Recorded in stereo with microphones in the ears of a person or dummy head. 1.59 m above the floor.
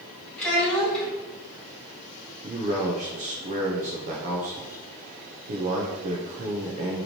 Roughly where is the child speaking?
Centre.